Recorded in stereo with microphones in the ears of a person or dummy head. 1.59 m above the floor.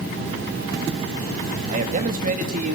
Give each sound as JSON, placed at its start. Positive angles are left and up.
{"t": 1.7, "sound": "a man speaking", "side_deg": -50, "distance_m": 3.0}